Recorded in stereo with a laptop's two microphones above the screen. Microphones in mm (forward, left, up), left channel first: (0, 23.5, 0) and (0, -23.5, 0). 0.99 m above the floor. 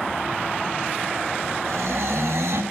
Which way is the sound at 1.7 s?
75° right (ahead or behind).